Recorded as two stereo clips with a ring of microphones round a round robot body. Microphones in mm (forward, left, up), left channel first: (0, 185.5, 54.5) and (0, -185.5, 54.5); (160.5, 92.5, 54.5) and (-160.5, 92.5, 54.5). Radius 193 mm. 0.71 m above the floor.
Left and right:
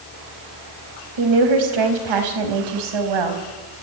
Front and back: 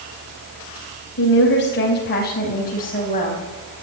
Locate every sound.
1.2 s a woman speaking: 60° right, 4.5 m; by 3.4 s 70° right, 5 m